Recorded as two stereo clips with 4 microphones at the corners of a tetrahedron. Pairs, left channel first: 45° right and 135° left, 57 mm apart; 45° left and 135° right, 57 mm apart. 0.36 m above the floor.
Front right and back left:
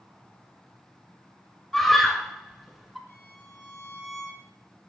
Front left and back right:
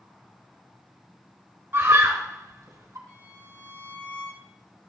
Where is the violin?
25° right, 7.5 m.